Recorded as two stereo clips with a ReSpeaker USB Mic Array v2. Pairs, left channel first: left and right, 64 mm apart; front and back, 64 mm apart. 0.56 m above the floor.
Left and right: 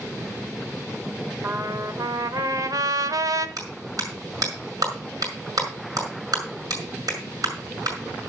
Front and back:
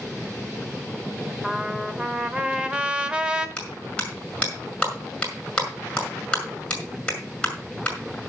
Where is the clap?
75° right, 5.5 m.